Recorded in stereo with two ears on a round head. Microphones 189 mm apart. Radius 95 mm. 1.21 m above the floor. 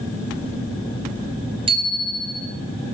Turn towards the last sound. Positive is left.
turn(degrees=-25)  # may be behind; listen again after turning